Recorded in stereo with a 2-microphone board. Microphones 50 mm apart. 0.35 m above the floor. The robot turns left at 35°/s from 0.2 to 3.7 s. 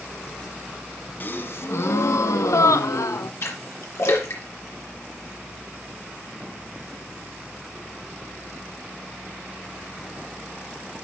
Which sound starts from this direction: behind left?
A gasp, at 1.2 s.